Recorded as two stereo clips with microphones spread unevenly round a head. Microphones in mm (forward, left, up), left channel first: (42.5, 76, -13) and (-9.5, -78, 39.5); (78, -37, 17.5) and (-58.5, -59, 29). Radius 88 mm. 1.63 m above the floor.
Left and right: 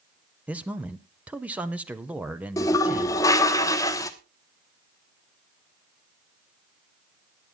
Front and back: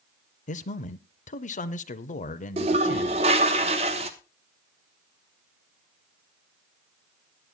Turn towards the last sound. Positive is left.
turn(degrees=155)